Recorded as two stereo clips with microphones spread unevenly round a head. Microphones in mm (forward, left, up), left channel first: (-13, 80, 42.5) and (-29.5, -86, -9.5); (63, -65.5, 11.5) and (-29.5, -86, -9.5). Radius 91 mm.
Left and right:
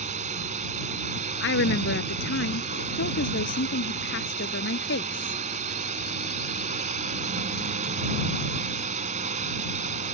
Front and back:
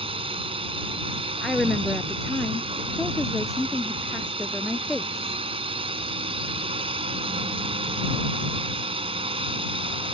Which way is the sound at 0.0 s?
145° right.